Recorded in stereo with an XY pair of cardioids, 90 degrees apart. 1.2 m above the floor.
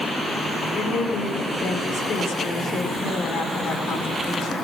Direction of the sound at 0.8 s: 70° left.